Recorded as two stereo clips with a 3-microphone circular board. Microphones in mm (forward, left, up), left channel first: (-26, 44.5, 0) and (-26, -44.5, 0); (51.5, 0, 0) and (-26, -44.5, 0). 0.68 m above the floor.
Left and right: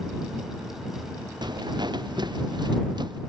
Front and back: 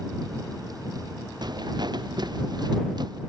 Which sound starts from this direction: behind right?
Footsteps, at 1.4 s.